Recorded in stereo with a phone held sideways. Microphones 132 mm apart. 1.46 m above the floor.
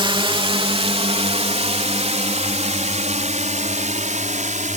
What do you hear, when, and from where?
0.0 s a drone: 35° right (ahead or behind); by 4.8 s 60° right (ahead or behind)